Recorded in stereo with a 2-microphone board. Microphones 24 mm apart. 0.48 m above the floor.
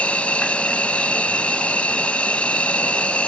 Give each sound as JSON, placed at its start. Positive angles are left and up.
{"t": 0.0, "sound": "an insect", "side_deg": 70}